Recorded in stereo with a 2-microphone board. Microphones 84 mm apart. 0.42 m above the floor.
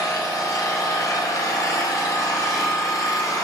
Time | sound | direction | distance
0.0 | an engine running | 45° left (ahead or behind) | 1.2 m